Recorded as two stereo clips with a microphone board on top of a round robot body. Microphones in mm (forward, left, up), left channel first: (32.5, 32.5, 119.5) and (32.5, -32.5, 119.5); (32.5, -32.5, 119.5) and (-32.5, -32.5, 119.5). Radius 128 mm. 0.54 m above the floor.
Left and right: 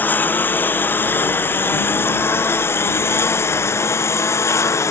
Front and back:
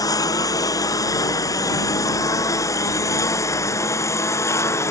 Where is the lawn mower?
30° left; by 4.9 s 45° left.